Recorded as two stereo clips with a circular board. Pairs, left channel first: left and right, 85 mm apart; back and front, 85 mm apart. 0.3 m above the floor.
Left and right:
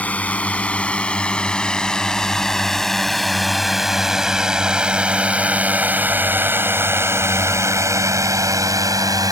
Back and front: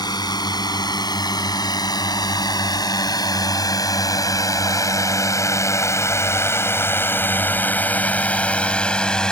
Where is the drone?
160° left; by 9.3 s 100° right.